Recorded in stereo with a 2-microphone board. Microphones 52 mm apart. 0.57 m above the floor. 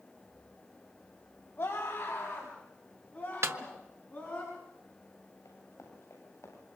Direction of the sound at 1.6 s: 45° left (ahead or behind).